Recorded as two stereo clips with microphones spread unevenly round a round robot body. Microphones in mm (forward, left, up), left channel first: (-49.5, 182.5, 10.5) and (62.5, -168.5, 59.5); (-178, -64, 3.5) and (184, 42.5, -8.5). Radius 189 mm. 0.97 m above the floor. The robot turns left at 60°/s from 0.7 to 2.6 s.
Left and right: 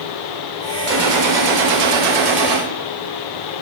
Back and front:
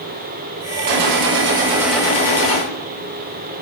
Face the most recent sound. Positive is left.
turn(degrees=-115)